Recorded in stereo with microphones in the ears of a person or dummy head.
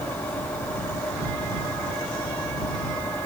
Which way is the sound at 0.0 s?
10° left (ahead or behind).